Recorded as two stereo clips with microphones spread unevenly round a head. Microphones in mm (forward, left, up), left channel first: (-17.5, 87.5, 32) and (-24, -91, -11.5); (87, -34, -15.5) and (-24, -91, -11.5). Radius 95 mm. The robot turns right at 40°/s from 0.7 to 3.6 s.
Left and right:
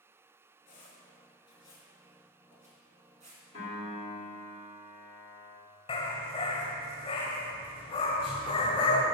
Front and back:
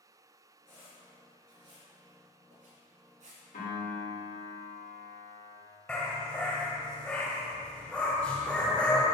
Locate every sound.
0.7 s a squeak: 110° left, 3 m; by 3.4 s 140° right, 3 m
3.5 s a piano: 25° left, 3 m; by 5.5 s 30° left, 3 m
5.9 s a dog barking: 105° left, 1.3 m